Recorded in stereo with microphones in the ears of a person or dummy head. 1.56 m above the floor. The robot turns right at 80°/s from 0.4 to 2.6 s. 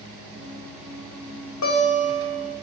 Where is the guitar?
110° left, 1.1 m; by 2.5 s 175° right, 1.1 m.